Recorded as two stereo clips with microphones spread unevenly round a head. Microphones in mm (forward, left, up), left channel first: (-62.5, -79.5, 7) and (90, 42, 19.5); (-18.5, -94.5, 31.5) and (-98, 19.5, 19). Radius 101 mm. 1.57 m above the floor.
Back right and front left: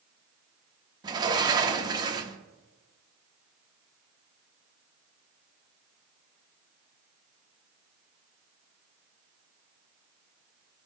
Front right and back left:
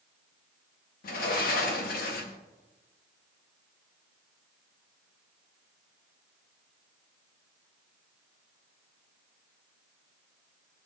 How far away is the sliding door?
About 0.8 m.